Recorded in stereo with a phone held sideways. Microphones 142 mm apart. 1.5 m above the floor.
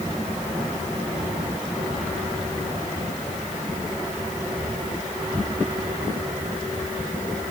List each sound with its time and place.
Only background noise.